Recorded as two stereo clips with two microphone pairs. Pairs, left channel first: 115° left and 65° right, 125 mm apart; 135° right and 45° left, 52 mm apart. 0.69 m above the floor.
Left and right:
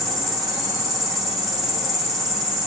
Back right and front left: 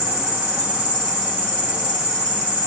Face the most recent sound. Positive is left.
turn(degrees=30)